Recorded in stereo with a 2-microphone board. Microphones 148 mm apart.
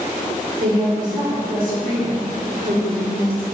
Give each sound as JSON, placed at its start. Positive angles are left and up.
{"t": 0.6, "sound": "a woman speaking", "side_deg": -75, "distance_m": 1.0}